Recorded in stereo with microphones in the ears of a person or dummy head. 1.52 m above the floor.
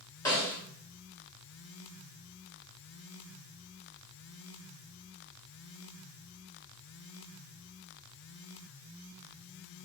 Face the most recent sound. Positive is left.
turn(degrees=15)  # may be behind; listen again after turning